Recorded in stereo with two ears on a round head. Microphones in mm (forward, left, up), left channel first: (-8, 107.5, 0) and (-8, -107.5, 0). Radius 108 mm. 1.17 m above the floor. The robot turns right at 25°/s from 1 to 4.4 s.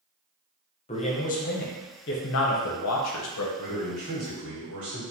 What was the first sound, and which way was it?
A man speaking, 30° left.